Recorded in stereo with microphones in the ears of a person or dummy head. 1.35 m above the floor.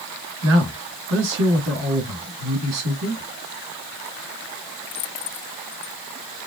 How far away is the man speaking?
About 2.0 m.